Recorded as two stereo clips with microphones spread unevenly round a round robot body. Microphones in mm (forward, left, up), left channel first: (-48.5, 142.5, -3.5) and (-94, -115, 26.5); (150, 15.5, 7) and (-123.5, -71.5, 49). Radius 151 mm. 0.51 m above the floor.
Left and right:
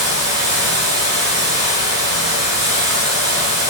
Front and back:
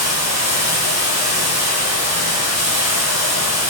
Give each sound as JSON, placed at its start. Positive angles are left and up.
{"t": 0.0, "sound": "running water", "azimuth_deg": -125, "distance_m": 5.0}